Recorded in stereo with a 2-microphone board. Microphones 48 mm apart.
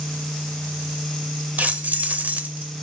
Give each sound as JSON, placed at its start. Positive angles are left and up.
{"t": 1.6, "sound": "keys jangling", "side_deg": -35, "distance_m": 0.6}